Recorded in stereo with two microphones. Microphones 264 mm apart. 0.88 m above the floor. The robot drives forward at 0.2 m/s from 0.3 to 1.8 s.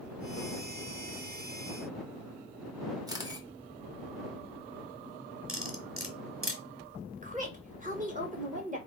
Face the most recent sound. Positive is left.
turn(degrees=-30)  # may be behind; listen again after turning